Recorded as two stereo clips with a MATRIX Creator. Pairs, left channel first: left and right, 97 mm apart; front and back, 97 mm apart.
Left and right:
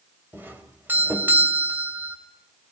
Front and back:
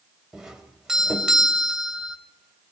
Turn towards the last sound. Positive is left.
turn(degrees=-105)